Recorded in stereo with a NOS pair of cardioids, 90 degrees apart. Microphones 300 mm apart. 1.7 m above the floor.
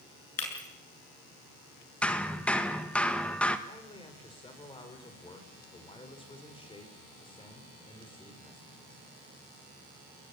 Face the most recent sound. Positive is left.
turn(degrees=15)